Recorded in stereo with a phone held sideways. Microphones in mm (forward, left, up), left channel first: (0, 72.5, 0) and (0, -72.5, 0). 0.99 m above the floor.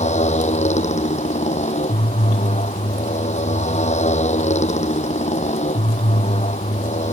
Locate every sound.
0.0 s a motorcycle: 50° left (ahead or behind)